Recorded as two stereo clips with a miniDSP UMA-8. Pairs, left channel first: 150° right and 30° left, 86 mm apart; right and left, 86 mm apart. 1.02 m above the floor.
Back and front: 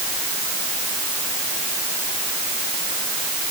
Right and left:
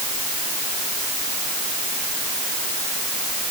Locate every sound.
Only background noise.